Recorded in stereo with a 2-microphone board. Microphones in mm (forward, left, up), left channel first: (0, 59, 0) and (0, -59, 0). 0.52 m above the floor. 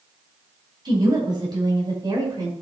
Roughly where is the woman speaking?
Right.